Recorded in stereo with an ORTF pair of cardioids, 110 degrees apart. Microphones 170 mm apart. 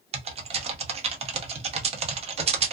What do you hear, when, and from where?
0.1 s typing on a keyboard: 40° right, 0.8 m